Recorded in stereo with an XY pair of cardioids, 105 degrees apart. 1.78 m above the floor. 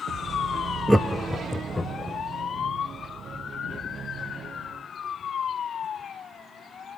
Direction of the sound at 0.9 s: 5° right.